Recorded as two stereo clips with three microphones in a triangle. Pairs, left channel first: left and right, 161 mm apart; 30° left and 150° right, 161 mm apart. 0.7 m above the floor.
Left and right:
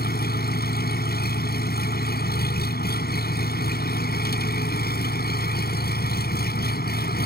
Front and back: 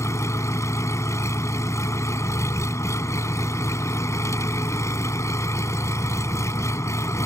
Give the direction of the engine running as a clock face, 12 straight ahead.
9 o'clock.